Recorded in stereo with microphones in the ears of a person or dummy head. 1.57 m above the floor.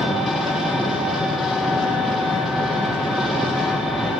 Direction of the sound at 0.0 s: 5° right (ahead or behind).